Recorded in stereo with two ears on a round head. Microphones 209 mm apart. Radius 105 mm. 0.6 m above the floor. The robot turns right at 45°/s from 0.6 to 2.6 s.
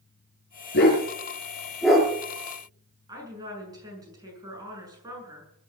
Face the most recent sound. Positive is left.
turn(degrees=-15)  # may be behind; listen again after turning